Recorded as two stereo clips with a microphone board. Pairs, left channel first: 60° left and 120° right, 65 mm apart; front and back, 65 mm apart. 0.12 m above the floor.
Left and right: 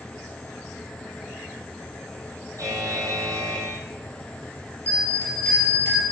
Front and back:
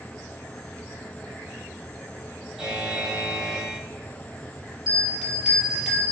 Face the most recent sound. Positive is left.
turn(degrees=100)